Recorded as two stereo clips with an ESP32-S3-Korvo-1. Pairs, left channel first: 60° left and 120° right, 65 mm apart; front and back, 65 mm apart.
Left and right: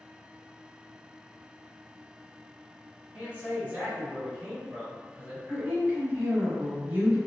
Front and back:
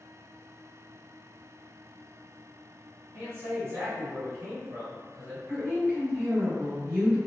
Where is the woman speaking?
155° right, 1.4 m.